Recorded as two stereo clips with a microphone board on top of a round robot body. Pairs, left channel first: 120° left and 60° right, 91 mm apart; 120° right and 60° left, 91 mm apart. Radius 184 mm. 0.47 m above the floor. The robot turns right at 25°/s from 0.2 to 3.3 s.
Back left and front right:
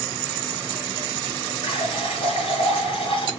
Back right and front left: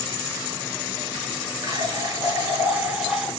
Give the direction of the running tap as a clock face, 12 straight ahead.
8 o'clock.